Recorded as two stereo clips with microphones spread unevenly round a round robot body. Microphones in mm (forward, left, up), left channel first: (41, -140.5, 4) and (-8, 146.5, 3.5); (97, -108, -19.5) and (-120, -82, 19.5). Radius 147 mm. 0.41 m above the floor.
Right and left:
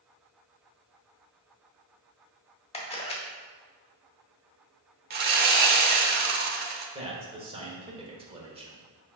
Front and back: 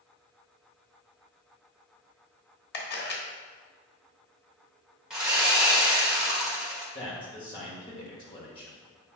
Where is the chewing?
No chewing in this recording.